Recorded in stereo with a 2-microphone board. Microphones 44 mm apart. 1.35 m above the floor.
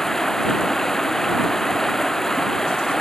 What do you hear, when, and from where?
0.0 s running water: 10° left (ahead or behind)